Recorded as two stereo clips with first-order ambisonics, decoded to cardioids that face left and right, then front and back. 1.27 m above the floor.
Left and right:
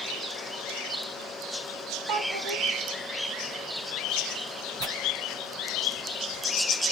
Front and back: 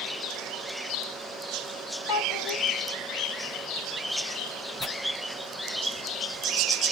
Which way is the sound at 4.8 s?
75° right.